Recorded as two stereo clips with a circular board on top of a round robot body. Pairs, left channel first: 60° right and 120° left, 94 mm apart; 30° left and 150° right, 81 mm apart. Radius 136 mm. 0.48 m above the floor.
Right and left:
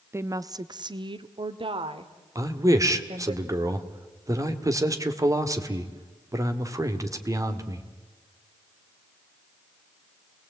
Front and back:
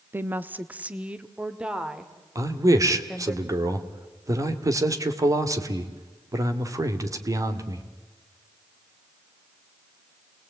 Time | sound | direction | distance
0.1 | a woman speaking | 165° left | 0.9 m
2.4 | a man speaking | 170° left | 2 m